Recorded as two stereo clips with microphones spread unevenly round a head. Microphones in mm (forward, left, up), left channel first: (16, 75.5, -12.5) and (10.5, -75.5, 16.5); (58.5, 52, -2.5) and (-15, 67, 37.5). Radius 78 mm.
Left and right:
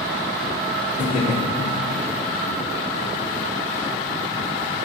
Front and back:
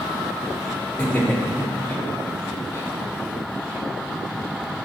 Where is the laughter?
60° left, 2.5 m; by 2.9 s 30° left, 1.7 m.